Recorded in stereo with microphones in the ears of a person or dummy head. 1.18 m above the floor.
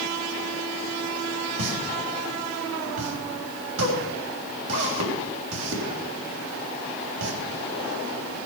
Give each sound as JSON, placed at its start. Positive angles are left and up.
{"t": 1.6, "sound": "a pop", "side_deg": -80, "distance_m": 3.5}